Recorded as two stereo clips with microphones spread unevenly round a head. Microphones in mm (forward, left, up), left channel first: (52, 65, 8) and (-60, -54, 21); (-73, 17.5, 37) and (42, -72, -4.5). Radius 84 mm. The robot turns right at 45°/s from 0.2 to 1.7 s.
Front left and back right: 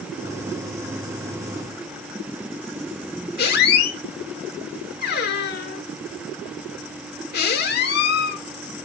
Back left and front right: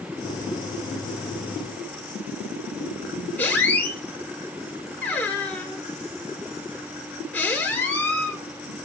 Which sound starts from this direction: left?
A squeak, at 3.4 s.